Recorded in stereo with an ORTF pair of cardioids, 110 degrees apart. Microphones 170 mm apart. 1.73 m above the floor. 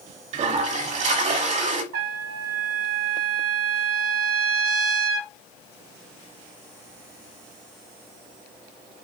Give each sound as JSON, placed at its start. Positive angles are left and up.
{"t": 0.3, "sound": "a toilet flushing", "azimuth_deg": -45, "distance_m": 1.1}
{"t": 1.9, "sound": "a trumpet", "azimuth_deg": -70, "distance_m": 1.0}